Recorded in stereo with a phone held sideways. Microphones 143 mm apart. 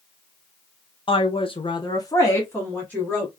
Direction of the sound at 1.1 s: 35° left (ahead or behind).